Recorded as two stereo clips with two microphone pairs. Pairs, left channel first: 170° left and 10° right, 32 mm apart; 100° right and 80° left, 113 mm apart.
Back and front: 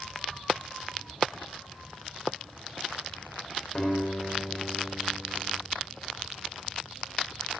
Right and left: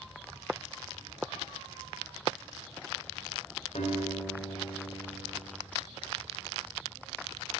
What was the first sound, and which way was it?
A guitar, 115° right.